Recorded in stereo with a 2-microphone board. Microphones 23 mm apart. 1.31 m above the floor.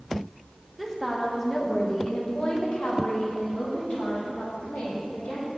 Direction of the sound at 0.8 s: 5° right (ahead or behind).